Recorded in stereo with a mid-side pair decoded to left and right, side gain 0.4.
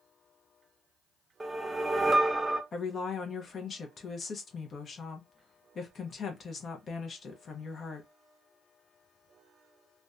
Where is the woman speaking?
55° left, 0.6 m.